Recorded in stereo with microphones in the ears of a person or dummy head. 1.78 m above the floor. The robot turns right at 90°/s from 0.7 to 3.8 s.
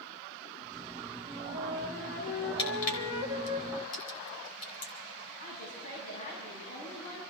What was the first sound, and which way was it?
A flute, 70° right.